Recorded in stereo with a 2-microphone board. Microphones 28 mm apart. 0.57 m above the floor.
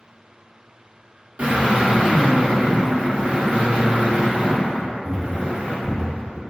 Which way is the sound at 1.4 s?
70° right (ahead or behind).